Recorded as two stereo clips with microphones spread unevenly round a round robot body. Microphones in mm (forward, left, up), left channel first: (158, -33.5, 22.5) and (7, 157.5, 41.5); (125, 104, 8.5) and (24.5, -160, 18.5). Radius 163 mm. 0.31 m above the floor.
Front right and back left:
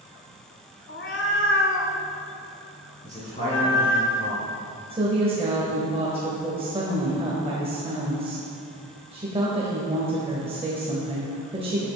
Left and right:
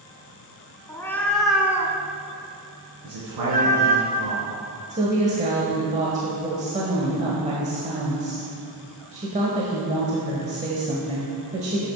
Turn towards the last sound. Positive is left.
turn(degrees=-170)